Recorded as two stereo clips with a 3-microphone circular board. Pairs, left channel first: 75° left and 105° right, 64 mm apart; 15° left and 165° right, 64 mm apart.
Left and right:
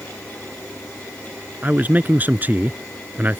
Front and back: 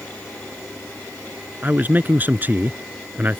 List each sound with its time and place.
1.6 s a man speaking: 135° right